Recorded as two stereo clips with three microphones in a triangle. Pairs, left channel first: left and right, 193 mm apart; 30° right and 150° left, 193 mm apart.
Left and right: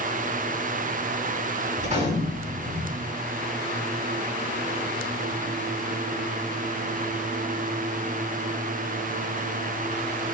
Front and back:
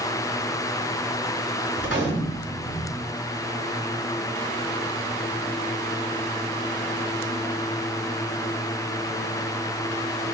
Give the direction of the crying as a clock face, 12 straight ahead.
No crying in this recording.